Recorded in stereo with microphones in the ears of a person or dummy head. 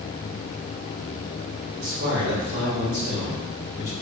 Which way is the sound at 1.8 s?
75° right (ahead or behind).